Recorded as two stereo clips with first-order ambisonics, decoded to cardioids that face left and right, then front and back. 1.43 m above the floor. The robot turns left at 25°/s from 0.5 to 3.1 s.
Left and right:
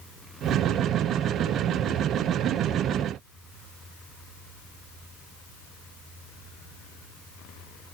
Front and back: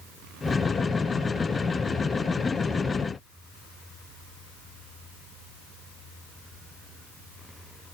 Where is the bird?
I don't hear a bird.